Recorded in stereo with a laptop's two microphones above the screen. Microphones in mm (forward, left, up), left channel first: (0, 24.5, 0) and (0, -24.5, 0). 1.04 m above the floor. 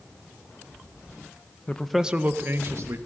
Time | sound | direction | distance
1.7 | a man speaking | 25° left (ahead or behind) | 0.6 m